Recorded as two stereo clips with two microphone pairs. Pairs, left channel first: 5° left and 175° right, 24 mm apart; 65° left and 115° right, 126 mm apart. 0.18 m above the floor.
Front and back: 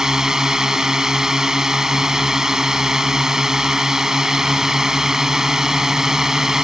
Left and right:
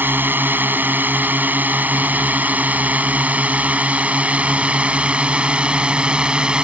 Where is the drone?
170° right; by 6.6 s 175° left.